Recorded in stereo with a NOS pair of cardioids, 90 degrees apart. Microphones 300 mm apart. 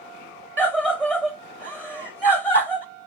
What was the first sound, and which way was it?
A scream, 5° right.